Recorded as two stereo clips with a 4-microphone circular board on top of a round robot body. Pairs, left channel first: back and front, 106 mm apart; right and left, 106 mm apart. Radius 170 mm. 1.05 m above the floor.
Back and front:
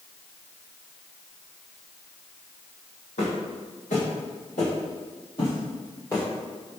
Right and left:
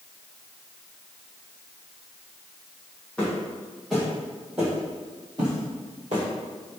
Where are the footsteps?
170° right, 1.8 m; by 6.2 s 110° left, 1.3 m.